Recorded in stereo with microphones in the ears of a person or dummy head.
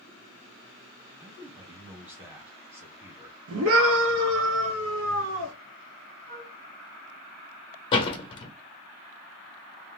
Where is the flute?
20° right (ahead or behind), 1.7 m.